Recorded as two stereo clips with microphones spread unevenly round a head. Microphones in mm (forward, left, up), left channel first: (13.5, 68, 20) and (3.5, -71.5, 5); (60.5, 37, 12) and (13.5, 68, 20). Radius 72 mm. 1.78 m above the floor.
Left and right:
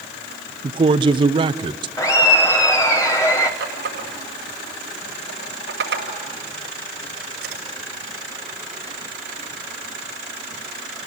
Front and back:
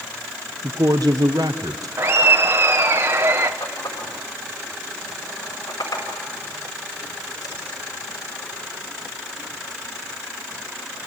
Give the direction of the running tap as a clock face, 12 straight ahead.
3 o'clock.